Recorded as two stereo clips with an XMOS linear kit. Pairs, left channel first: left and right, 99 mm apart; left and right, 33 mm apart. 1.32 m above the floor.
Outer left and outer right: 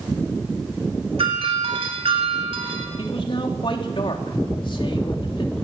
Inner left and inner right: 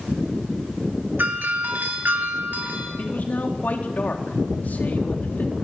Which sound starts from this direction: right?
A doorbell, at 1.2 s.